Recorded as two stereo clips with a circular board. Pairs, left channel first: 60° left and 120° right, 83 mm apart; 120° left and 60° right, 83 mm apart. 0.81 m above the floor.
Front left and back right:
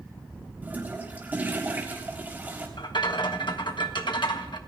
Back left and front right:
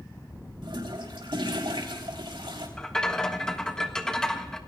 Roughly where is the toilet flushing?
Ahead right.